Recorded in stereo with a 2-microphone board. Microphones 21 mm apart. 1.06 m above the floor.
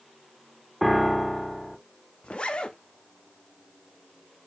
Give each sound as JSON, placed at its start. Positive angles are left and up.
{"t": 0.8, "sound": "a piano", "side_deg": 5, "distance_m": 0.6}
{"t": 2.2, "sound": "a zipper", "side_deg": 55, "distance_m": 0.6}